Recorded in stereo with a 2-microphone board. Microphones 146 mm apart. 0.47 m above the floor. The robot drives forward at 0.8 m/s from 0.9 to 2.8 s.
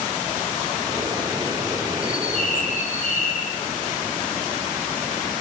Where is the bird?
65° left (ahead or behind), 7 m; by 3.5 s 60° left (ahead or behind), 7.5 m.